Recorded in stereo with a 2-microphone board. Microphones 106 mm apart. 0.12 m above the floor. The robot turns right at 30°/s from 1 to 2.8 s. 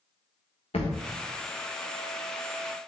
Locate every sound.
0.7 s a thud: 70° left (ahead or behind), 1.9 m